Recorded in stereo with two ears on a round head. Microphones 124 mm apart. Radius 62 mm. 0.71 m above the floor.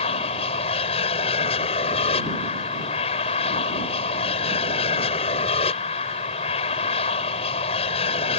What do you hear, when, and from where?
0.0 s an aircraft: 40° left (ahead or behind)